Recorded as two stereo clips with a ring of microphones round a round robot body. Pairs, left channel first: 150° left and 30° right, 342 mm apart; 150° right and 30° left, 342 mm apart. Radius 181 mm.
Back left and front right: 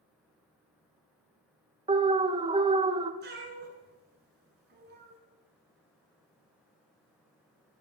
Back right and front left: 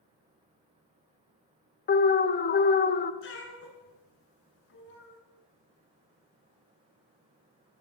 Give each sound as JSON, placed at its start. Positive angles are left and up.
{"t": 1.9, "sound": "an alarm", "azimuth_deg": -100, "distance_m": 0.6}
{"t": 3.2, "sound": "a cat meowing", "azimuth_deg": -90, "distance_m": 1.6}